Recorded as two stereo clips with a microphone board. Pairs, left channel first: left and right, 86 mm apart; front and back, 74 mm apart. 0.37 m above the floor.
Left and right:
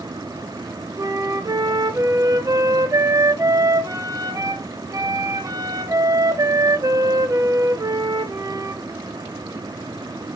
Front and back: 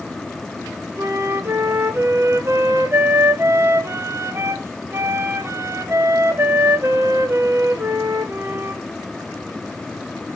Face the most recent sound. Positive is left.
turn(degrees=-130)